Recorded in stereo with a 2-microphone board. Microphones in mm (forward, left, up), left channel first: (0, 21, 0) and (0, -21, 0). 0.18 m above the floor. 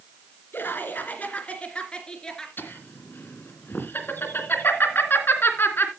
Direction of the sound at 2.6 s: 55° left (ahead or behind).